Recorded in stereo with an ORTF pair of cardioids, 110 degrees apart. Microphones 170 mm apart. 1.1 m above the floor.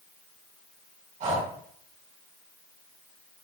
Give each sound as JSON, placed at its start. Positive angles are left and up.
{"t": 1.2, "sound": "breathing", "azimuth_deg": -50, "distance_m": 4.5}